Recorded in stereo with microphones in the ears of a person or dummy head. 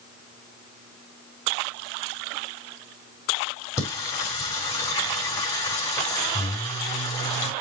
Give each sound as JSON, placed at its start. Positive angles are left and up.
{"t": 3.8, "sound": "singing", "side_deg": 20, "distance_m": 4.5}